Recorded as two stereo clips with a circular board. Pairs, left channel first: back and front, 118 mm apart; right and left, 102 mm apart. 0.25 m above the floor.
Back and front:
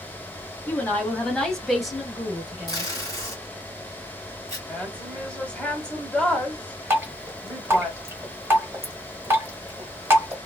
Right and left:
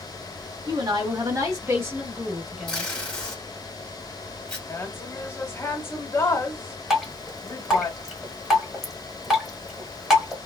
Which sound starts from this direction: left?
A woman speaking, at 0.7 s.